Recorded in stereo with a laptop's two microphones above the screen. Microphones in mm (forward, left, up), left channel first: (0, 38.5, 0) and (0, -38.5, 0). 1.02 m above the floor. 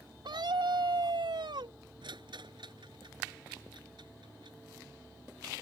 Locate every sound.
0.2 s a scream: 80° right
2.0 s a rattle: 80° right